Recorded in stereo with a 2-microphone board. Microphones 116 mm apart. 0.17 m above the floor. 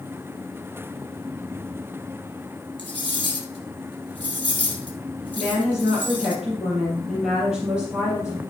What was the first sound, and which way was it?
Cutlery clinking, 40° right (ahead or behind).